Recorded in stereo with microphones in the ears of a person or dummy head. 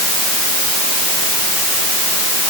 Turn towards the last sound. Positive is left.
No sound to turn to.